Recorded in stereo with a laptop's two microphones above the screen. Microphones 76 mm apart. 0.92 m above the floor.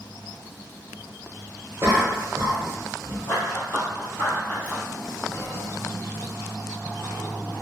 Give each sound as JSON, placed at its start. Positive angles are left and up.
{"t": 1.8, "sound": "a cough", "side_deg": -30, "distance_m": 0.9}
{"t": 3.3, "sound": "running footsteps", "side_deg": 30, "distance_m": 1.3}
{"t": 5.3, "sound": "whispering", "side_deg": 35, "distance_m": 0.7}